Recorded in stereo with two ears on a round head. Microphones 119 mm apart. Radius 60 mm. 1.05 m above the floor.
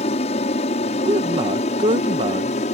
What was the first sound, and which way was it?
An aircraft, 50° left (ahead or behind).